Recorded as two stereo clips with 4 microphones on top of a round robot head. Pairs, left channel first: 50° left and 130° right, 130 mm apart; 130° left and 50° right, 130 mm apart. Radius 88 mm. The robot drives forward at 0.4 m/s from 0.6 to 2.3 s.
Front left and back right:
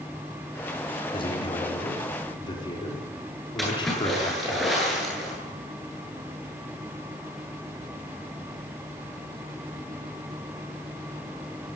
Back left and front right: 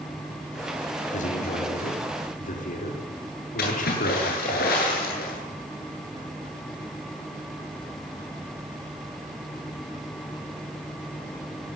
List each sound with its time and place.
1.1 s a man speaking: 100° left, 5 m; by 4.6 s 105° left, 5.5 m
3.6 s a splash: 140° left, 9.5 m